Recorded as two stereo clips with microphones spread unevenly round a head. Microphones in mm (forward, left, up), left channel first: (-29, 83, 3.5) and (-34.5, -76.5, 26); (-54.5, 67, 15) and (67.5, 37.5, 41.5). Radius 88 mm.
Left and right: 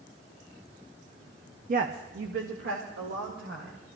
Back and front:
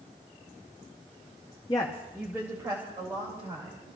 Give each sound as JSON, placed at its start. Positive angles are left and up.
{"t": 1.7, "sound": "a woman speaking", "azimuth_deg": -135, "distance_m": 0.8}